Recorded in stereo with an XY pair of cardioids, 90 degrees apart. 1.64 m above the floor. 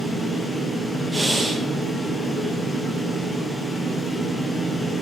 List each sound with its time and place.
0.0 s a fan: 20° left, 0.7 m
1.1 s breathing: 20° right, 0.7 m